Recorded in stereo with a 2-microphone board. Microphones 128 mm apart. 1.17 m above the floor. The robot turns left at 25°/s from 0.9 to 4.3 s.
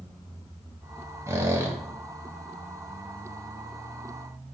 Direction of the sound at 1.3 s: 20° right (ahead or behind).